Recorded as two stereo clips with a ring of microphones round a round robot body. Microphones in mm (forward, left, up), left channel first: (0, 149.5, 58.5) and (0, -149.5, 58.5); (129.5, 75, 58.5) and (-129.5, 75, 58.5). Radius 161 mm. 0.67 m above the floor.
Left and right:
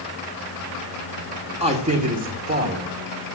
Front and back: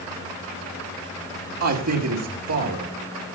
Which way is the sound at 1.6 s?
160° right.